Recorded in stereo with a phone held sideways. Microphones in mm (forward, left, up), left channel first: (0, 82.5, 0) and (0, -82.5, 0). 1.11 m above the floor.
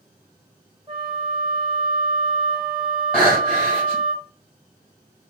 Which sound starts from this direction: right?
A flute, at 0.9 s.